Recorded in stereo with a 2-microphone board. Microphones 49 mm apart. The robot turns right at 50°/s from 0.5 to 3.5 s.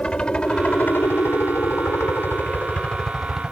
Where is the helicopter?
20° left (ahead or behind); by 3.5 s 10° right (ahead or behind).